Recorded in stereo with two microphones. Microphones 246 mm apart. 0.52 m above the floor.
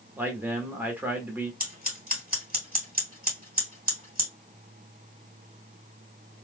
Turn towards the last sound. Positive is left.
turn(degrees=-35)  # may be behind; listen again after turning